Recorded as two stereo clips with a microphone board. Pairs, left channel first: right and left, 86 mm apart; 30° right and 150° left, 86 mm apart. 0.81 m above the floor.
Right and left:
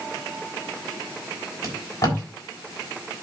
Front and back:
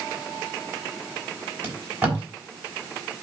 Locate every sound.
1.6 s tape being pulled: 145° right, 3.5 m